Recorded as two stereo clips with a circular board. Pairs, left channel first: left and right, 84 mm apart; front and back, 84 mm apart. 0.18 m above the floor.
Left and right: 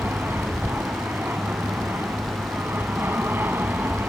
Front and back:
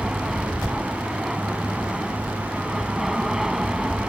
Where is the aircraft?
100° right.